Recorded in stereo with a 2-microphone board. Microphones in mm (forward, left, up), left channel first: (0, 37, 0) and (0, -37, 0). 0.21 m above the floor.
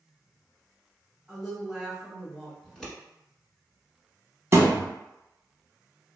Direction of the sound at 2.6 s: 5° left (ahead or behind).